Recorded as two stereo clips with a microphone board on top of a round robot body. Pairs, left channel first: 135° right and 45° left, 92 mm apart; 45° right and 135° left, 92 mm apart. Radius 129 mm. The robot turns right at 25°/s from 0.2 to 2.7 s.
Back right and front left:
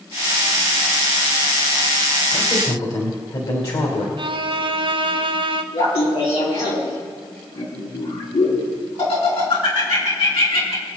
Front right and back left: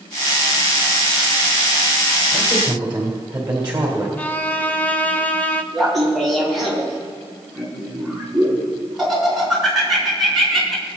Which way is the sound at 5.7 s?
135° right.